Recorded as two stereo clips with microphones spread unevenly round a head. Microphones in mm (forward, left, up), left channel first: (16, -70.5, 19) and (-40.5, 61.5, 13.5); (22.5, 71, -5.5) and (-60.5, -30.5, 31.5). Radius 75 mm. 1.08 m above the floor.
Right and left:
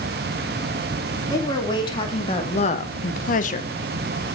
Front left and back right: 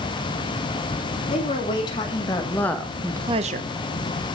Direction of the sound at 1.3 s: Straight ahead.